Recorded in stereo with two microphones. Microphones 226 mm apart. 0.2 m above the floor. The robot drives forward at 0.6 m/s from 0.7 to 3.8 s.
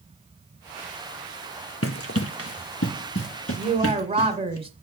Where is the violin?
I don't hear a violin.